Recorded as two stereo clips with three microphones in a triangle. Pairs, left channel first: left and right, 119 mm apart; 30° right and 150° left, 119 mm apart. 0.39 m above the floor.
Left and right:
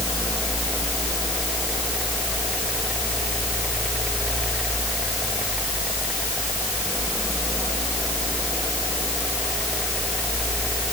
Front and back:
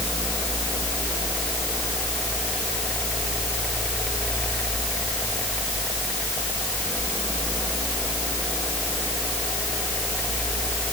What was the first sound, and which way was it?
Only background noise.